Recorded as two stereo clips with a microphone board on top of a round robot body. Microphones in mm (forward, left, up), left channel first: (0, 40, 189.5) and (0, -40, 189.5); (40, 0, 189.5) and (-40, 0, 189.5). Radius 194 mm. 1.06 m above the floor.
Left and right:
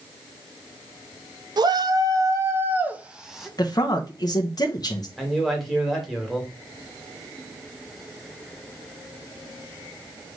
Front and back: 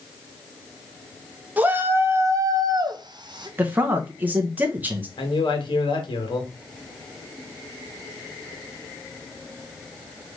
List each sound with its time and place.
1.6 s a shout: 110° right, 1.3 m; by 3.5 s straight behind, 1.4 m
3.6 s a man speaking: 115° left, 0.9 m
5.2 s a man speaking: straight ahead, 1.9 m